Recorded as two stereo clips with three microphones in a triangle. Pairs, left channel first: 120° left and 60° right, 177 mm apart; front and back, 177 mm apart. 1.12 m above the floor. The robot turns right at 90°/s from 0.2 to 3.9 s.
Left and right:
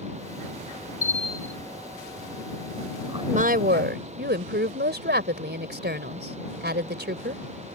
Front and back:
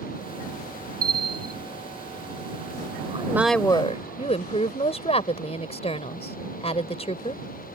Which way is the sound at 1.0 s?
155° left.